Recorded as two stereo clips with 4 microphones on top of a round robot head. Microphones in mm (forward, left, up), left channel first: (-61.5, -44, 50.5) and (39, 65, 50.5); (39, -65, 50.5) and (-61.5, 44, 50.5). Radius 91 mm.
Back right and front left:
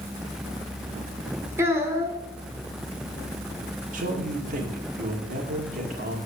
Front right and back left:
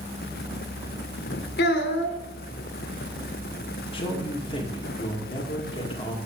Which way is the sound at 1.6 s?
30° right.